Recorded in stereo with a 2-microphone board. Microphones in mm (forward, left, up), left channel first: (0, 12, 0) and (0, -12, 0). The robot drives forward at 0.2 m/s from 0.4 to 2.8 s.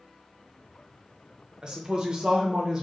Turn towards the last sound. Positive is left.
turn(degrees=-30)  # may be behind; listen again after turning